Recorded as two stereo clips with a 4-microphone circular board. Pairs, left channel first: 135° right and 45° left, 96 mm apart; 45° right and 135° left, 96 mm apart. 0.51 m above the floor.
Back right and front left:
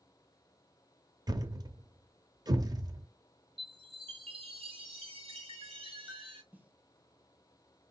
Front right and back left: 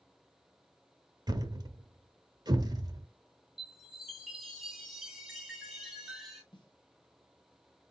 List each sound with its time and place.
1.3 s a thud: 90° left, 0.7 m
3.6 s a chime: 50° left, 2 m
6.5 s a snare drum: 25° right, 1.4 m